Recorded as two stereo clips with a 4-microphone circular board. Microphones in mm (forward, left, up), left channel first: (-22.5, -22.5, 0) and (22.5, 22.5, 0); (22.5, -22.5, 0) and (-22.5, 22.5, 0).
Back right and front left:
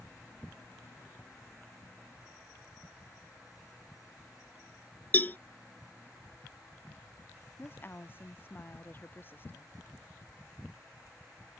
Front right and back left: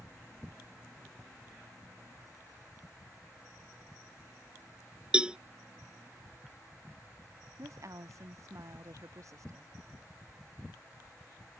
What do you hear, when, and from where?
5.1 s a cowbell: 165° right
7.6 s a woman speaking: 170° left